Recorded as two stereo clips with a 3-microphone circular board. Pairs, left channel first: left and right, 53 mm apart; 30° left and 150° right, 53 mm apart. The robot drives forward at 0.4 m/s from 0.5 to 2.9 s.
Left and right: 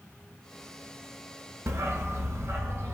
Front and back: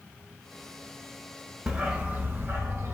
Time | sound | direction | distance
1.7 | a dog barking | 80° right | 0.7 m